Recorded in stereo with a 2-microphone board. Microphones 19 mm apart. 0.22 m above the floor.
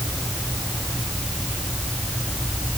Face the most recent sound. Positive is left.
No sound to turn to.